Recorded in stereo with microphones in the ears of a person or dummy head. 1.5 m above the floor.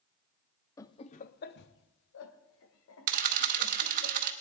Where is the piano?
I don't hear a piano.